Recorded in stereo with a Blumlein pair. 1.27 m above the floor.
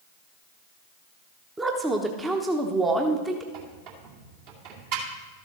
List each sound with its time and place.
1.6 s a woman speaking: 10° right, 1.0 m
3.5 s a squeak: 45° right, 2 m